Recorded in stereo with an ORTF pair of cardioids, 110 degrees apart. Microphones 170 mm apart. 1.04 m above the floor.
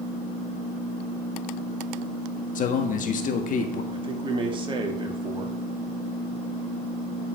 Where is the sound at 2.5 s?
50° left, 1.5 m.